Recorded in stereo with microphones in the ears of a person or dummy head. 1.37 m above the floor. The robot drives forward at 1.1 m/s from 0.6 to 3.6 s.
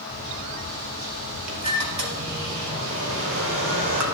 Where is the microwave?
70° right (ahead or behind), 5 m.